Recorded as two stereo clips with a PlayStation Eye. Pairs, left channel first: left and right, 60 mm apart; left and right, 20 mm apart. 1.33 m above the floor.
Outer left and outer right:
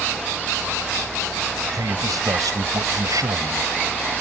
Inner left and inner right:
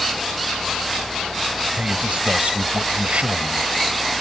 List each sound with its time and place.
1.7 s a man speaking: 85° right